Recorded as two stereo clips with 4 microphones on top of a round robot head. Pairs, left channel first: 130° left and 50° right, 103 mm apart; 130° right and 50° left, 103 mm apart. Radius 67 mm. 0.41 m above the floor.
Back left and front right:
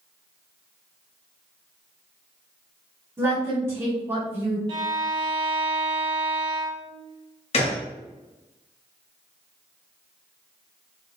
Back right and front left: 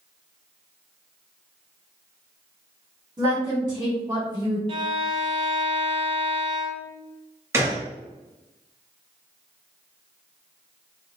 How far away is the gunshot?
About 1.1 m.